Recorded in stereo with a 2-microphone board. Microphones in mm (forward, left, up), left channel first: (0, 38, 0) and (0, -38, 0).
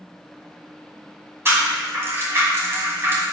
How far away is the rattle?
About 1.7 m.